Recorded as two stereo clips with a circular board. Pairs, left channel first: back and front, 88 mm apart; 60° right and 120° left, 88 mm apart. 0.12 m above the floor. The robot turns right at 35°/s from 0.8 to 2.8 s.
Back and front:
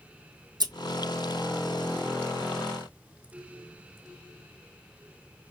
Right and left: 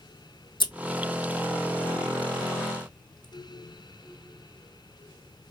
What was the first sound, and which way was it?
Scissors, 35° right.